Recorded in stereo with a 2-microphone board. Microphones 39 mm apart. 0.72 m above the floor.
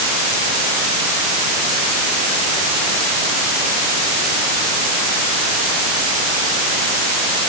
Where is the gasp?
I don't hear a gasp.